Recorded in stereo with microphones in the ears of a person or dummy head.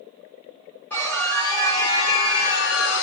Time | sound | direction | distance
0.9 | a scream | 5° left (ahead or behind) | 1.6 m